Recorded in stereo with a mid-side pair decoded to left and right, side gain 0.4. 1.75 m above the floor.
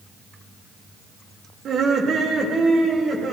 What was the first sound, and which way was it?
Laughter, 65° right.